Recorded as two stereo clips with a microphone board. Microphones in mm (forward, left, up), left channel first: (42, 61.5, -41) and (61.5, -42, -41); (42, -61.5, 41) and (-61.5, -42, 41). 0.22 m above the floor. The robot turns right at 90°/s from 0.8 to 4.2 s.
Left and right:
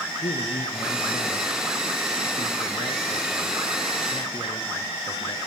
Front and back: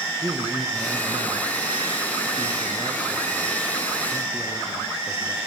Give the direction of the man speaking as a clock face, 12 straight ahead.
9 o'clock.